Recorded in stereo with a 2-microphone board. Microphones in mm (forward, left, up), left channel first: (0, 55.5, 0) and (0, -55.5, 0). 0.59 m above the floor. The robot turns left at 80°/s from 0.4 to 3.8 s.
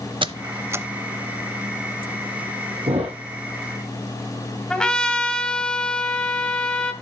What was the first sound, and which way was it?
A squeak, 45° right (ahead or behind).